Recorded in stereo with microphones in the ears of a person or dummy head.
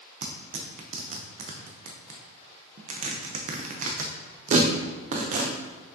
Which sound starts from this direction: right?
Tearing paper, at 0.2 s.